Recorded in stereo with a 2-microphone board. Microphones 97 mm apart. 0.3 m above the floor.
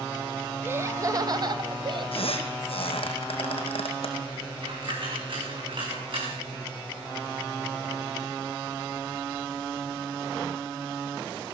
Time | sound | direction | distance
0.6 | laughter | 20° right (ahead or behind) | 1.1 m
2.1 | a squeak | 70° left (ahead or behind) | 2.5 m
4.6 | a dropped coin | 55° right (ahead or behind) | 7 m